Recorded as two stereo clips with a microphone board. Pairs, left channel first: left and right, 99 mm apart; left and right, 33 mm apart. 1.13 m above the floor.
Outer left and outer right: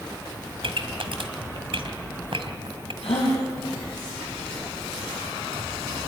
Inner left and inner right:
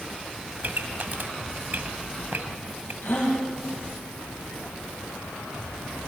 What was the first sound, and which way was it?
A pop, 60° right (ahead or behind).